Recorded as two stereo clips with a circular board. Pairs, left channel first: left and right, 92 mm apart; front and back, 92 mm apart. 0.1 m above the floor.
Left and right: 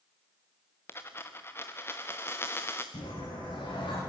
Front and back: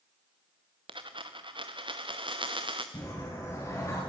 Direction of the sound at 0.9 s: 155° left.